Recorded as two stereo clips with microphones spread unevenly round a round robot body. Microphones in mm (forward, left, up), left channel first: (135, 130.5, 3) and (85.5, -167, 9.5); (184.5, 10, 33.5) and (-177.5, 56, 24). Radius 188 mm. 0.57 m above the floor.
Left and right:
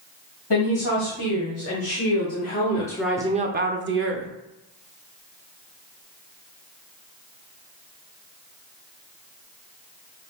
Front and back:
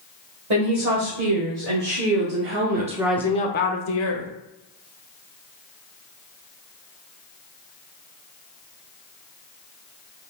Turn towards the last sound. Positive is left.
turn(degrees=-55)